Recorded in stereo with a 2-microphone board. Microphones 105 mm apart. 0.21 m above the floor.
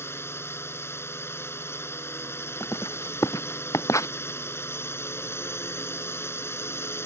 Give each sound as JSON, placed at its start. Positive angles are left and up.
{"t": 0.0, "sound": "a drone", "side_deg": 25}
{"t": 2.6, "sound": "writing", "side_deg": 30}